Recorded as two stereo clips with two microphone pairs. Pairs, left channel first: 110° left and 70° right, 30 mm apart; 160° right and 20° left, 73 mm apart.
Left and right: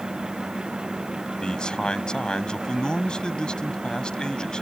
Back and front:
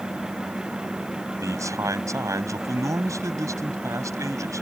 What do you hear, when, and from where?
1.4 s a man speaking: 55° left